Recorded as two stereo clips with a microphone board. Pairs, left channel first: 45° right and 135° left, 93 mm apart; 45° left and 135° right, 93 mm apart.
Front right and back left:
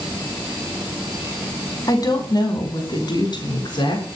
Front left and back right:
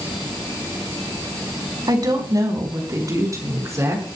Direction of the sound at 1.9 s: 90° right.